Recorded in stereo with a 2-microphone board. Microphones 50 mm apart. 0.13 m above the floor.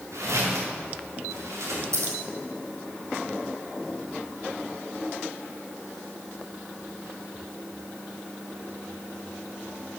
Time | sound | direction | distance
0.1 | footsteps | 75° right (ahead or behind) | 4.5 m
1.9 | scissors | 75° right (ahead or behind) | 3 m